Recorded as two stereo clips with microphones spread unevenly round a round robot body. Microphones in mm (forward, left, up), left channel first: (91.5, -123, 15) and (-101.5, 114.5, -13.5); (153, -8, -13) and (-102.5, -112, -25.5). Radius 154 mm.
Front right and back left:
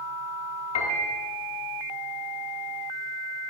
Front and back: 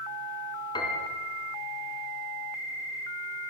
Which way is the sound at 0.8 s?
50° right.